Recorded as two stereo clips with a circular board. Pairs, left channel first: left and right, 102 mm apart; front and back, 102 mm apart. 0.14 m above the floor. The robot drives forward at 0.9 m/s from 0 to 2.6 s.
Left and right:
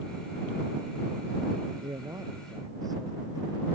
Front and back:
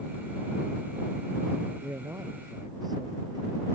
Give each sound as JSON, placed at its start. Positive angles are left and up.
{"t": 1.8, "sound": "a man speaking", "azimuth_deg": -125}